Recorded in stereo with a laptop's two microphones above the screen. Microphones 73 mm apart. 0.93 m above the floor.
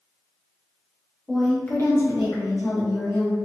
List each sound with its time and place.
1.3 s a woman speaking: 5° right (ahead or behind), 0.9 m; by 3.4 s 65° left (ahead or behind), 1.9 m